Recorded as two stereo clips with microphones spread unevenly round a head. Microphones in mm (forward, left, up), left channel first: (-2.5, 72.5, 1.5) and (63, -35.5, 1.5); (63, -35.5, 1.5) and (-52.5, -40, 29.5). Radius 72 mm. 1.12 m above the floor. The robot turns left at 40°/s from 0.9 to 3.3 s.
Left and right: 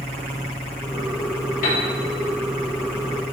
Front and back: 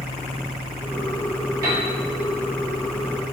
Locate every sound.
1.6 s a piano: 115° left, 3 m; by 1.9 s 105° left, 3 m